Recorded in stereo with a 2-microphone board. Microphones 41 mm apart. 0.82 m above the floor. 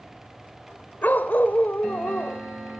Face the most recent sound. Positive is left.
turn(degrees=50)  # may be behind; listen again after turning